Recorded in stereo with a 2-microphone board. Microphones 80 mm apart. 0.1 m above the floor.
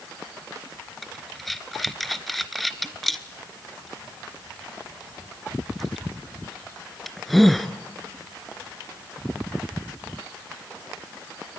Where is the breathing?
Centre (ahead or behind), 0.9 m.